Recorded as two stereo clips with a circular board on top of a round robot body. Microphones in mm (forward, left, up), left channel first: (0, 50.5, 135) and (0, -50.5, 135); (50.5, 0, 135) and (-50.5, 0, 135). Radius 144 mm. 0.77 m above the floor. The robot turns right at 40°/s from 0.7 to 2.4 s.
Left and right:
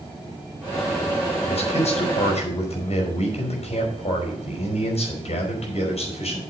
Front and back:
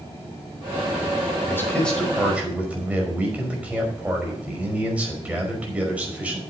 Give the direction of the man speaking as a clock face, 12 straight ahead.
10 o'clock.